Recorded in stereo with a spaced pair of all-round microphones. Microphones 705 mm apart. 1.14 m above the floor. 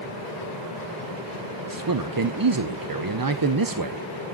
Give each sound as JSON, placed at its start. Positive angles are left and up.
{"t": 1.7, "sound": "a man speaking", "side_deg": -35, "distance_m": 0.5}